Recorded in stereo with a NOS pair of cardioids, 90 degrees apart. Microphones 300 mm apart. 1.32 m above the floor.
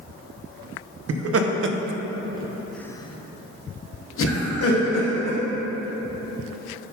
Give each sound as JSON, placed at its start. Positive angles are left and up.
{"t": 1.1, "sound": "laughter", "azimuth_deg": -60, "distance_m": 1.0}